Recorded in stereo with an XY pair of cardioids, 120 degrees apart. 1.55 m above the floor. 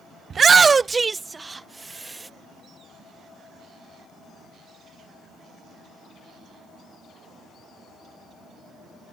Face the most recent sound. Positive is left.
turn(degrees=-15)